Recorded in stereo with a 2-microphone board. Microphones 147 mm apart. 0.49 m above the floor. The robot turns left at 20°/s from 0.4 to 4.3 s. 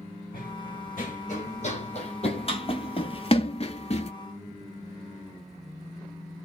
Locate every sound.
0.3 s running footsteps: 70° left (ahead or behind), 2 m; by 4.1 s 45° left (ahead or behind), 0.6 m